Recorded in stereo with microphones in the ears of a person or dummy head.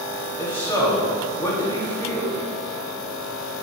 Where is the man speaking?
25° left (ahead or behind), 3 m.